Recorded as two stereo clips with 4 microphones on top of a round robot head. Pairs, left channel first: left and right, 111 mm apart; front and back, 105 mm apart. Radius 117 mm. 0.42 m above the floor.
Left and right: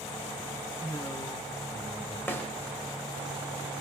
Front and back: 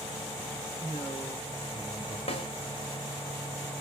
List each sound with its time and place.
0.8 s a man speaking: 45° left, 1.6 m; by 2.2 s 50° left, 2.5 m
2.3 s a snare drum: 20° left, 1.2 m